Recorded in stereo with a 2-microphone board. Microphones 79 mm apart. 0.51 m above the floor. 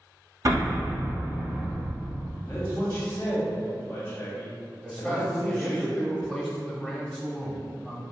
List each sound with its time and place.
0.5 s an explosion: 45° right (ahead or behind), 1.0 m
2.5 s a man speaking: 30° left (ahead or behind), 0.8 m
4.8 s a man speaking: 10° left (ahead or behind), 0.8 m